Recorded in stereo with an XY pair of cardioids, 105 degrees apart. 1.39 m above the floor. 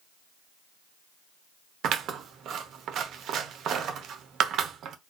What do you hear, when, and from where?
1.8 s scissors: 70° right, 0.7 m